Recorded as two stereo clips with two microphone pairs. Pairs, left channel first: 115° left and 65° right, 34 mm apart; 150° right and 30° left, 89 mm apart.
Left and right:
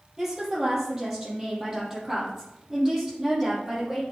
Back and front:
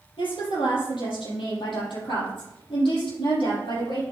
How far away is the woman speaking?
About 5 m.